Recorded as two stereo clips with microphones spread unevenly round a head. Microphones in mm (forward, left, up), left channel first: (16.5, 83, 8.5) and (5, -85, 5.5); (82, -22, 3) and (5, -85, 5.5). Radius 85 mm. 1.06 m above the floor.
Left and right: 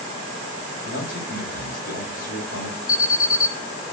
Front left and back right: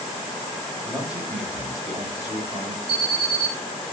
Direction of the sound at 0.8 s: 130° left.